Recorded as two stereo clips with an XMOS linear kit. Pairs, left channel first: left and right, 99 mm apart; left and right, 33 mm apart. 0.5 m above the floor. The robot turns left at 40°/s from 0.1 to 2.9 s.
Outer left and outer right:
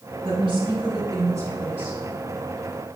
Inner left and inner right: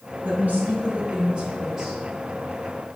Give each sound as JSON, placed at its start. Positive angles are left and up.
{"t": 0.2, "sound": "a woman speaking", "azimuth_deg": -100, "distance_m": 2.5}